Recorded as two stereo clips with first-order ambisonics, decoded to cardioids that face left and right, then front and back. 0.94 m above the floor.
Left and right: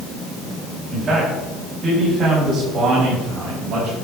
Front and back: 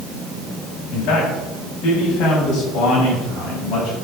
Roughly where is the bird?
No bird in this recording.